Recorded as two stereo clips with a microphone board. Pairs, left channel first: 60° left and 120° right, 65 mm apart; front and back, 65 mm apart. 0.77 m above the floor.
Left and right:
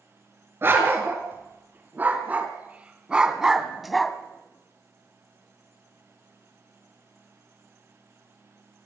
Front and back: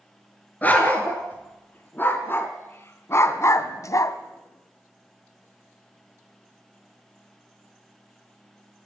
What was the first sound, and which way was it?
A dog barking, 65° right.